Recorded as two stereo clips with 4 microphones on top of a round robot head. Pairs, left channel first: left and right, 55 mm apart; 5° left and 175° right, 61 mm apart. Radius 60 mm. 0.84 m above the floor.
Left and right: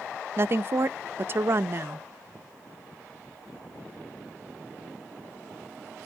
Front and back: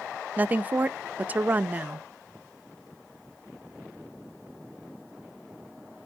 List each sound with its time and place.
0.4 s a woman speaking: 120° right, 0.6 m